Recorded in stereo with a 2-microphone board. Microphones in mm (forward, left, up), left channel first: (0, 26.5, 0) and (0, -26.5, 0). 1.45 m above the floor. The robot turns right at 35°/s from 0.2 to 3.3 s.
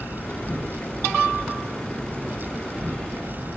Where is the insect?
115° left, 1.3 m; by 3.6 s 135° right, 1.3 m.